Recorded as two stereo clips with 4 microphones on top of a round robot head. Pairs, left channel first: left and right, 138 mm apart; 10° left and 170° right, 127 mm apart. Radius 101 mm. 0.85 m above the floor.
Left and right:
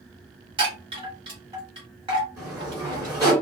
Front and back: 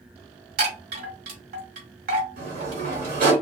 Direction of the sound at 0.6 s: 155° right.